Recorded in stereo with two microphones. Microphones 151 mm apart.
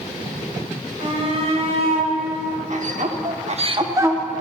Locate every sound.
1.0 s a shout: 40° right (ahead or behind), 3.5 m; by 4.2 s 10° right (ahead or behind), 1.1 m